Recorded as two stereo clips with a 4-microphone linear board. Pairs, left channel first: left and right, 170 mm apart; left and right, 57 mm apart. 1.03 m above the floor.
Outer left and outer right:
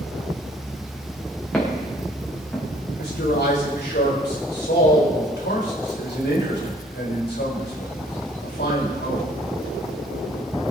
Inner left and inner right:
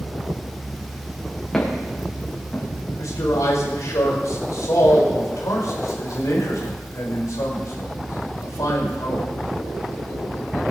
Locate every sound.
1.5 s footsteps: 5° left (ahead or behind), 5.5 m
3.0 s a man speaking: 80° left, 5 m